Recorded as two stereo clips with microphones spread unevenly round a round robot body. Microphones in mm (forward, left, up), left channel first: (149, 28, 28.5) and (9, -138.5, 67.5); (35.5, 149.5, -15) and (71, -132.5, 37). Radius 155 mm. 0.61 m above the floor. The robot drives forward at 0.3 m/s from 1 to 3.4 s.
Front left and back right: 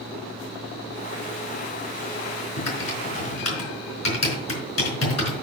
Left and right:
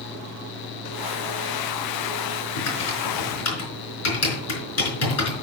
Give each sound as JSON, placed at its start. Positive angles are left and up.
{"t": 2.6, "sound": "typing on a keyboard", "azimuth_deg": 60, "distance_m": 4.5}